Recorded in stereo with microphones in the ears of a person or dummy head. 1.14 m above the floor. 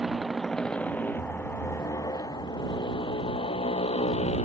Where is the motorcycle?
Centre (ahead or behind); by 4.5 s 40° left (ahead or behind).